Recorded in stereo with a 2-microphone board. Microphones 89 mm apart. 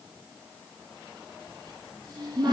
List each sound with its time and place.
1.5 s a cupboard door: 50° right (ahead or behind), 3.5 m